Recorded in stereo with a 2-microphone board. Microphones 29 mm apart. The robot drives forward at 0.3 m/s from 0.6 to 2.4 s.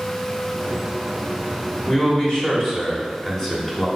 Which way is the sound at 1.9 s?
25° left (ahead or behind).